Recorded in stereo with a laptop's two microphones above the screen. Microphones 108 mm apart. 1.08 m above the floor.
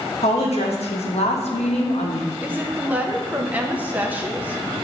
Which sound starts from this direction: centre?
A woman speaking, at 2.4 s.